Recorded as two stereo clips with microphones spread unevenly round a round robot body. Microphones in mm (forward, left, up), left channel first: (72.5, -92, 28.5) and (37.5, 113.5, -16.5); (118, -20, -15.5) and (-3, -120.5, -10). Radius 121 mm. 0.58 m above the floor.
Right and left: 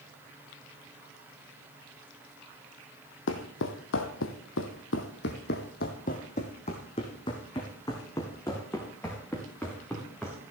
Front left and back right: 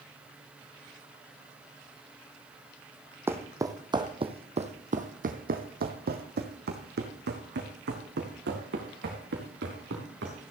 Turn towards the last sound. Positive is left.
turn(degrees=-165)